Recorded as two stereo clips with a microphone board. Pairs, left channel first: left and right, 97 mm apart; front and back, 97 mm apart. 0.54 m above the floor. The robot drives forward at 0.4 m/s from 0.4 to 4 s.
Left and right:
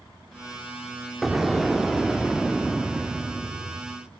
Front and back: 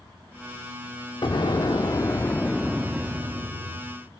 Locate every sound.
1.2 s an explosion: straight ahead, 0.8 m; by 4.0 s straight behind, 0.7 m